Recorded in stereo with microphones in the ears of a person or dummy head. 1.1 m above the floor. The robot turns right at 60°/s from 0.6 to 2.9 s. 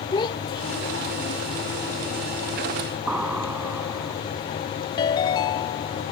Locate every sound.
0.1 s a child speaking: 25° left; by 1.4 s 75° left
3.1 s an explosion: 10° right (ahead or behind)
5.0 s a ringtone: 25° left (ahead or behind)